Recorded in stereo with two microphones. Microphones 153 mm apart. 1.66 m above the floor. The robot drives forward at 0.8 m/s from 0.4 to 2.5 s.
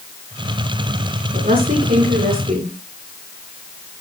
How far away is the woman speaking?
About 9 m.